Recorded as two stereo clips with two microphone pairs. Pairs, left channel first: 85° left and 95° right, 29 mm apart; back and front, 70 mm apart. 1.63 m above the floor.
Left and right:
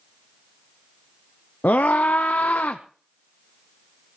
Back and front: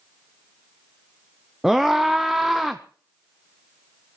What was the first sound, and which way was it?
A scream, 90° left.